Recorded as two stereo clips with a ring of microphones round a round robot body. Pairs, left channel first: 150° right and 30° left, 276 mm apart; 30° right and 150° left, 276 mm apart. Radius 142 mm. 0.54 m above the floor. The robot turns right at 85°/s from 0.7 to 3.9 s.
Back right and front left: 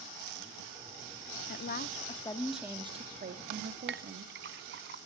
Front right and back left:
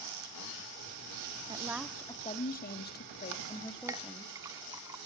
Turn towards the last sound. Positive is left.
turn(degrees=75)